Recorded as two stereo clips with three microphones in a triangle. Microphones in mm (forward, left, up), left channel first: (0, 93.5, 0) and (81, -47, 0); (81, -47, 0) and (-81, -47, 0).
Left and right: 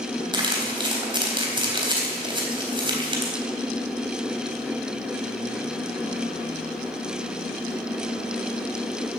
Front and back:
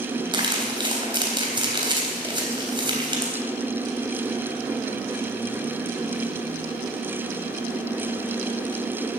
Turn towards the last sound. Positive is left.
turn(degrees=-120)